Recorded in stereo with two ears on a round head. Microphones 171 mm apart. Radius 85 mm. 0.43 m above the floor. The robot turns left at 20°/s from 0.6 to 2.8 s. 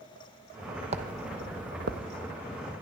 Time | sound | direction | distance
0.9 | footsteps | 35° right (ahead or behind) | 1.0 m